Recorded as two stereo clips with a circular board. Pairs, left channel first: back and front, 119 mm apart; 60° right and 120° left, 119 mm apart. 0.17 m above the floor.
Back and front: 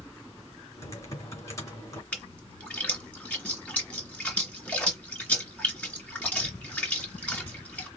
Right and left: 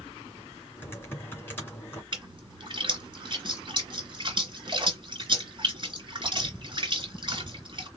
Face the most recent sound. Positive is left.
turn(degrees=105)